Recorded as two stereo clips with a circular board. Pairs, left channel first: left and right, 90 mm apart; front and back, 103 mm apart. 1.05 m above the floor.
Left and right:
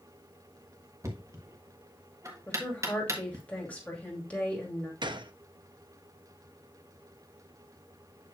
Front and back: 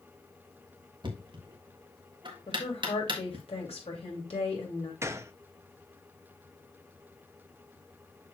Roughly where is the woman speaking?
Ahead.